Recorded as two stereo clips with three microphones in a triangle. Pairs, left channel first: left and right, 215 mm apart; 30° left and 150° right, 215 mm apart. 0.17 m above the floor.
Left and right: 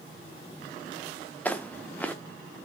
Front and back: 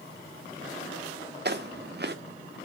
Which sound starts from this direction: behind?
Footsteps, at 1.4 s.